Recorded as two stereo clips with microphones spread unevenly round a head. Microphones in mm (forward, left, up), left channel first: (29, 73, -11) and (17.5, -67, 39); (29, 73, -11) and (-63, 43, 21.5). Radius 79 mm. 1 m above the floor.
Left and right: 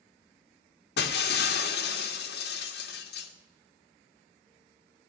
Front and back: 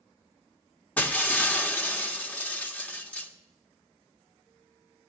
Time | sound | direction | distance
1.0 | breaking glass | 95° left | 1.7 m